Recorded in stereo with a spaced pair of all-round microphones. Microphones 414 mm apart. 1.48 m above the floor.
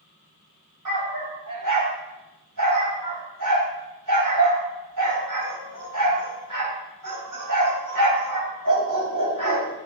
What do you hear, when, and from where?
0.8 s a dog barking: 45° right (ahead or behind), 2.5 m